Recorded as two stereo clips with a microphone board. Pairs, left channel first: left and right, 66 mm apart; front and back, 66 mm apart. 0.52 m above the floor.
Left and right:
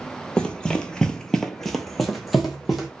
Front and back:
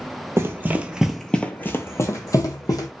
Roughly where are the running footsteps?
Behind.